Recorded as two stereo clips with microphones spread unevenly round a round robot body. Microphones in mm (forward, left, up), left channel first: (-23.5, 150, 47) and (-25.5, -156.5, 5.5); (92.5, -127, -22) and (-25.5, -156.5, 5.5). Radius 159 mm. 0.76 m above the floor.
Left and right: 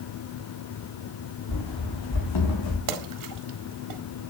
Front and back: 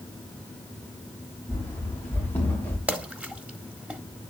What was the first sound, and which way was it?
Running footsteps, 85° left.